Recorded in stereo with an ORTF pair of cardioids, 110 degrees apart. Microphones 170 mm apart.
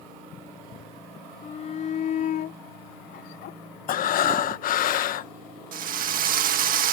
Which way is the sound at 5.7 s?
60° right.